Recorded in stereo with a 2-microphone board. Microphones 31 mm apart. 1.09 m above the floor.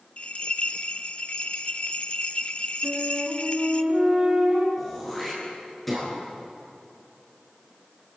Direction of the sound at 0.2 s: 35° left (ahead or behind).